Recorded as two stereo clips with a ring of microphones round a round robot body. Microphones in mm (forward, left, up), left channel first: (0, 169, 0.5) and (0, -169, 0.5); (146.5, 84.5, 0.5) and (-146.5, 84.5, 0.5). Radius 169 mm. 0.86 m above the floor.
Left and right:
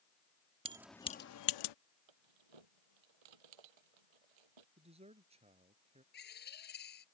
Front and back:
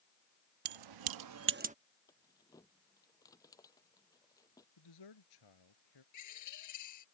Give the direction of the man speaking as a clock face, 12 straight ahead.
1 o'clock.